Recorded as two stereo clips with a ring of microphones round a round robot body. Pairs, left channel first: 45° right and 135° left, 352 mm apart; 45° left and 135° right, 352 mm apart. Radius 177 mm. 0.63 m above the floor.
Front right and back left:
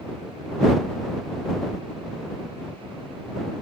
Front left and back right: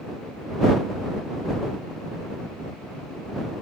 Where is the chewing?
I don't hear chewing.